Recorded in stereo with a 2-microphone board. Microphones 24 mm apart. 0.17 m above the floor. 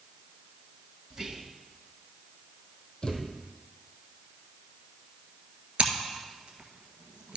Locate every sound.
1.1 s whispering: 30° right (ahead or behind), 1.2 m
3.0 s a thud: 40° left (ahead or behind), 1.8 m
5.8 s scissors: 50° right (ahead or behind), 1.6 m